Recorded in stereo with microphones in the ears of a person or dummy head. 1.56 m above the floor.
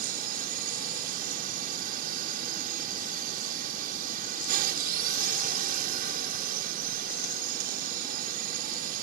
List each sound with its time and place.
0.0 s a drone: 50° right (ahead or behind)